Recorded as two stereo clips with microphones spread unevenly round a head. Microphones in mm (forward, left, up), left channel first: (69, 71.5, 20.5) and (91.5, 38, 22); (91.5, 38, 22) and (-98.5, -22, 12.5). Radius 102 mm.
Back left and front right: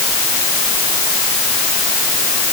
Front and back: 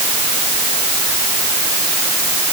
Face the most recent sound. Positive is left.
No sound to turn to.